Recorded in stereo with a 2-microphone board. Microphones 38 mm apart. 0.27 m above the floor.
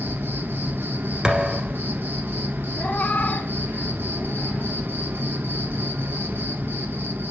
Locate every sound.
0.0 s an insect: 80° right, 1.3 m
1.2 s a thud: 15° right (ahead or behind), 1.6 m
2.8 s a cat meowing: 50° left (ahead or behind), 0.6 m